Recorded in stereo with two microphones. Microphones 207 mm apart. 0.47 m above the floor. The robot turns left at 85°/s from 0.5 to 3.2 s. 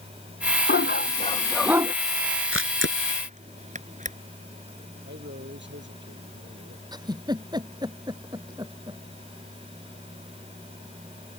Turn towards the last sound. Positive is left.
turn(degrees=-20)  # may be behind; listen again after turning